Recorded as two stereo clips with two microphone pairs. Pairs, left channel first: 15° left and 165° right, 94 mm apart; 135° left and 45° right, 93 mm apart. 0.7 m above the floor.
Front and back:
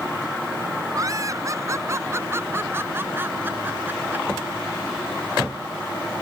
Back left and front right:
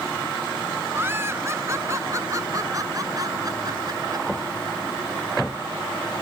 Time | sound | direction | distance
0.9 | laughter | 110° right | ?